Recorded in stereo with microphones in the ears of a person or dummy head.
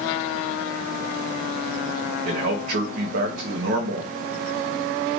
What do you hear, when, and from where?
2.2 s a man speaking: 55° right (ahead or behind), 0.7 m